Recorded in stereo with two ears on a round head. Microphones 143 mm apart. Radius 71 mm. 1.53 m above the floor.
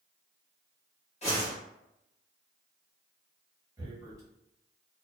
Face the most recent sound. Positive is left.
turn(degrees=-20)  # may be behind; listen again after turning